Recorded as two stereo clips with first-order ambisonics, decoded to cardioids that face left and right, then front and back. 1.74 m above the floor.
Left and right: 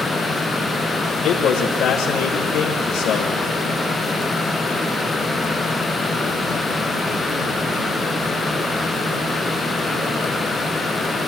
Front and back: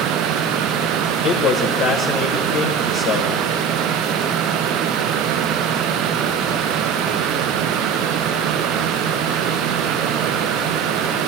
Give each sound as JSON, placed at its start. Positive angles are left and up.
{"t": 1.2, "sound": "a man speaking", "azimuth_deg": 45, "distance_m": 1.4}